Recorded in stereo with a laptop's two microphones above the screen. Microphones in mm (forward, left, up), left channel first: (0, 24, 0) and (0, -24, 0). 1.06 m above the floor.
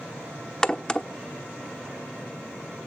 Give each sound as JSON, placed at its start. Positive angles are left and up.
{"t": 0.6, "sound": "a crack", "side_deg": 15, "distance_m": 0.9}